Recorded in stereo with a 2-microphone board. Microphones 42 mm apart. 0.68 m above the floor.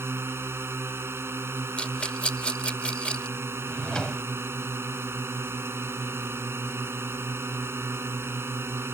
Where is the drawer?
20° left (ahead or behind).